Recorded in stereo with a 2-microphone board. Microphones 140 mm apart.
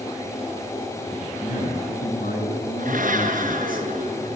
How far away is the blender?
About 5 m.